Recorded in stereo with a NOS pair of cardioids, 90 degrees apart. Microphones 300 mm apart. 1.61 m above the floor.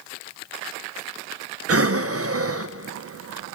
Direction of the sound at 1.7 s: 50° right.